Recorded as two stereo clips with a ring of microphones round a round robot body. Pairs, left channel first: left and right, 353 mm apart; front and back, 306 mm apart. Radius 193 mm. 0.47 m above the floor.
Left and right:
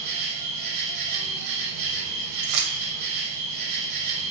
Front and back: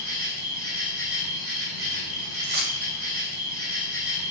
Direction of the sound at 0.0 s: 95° right.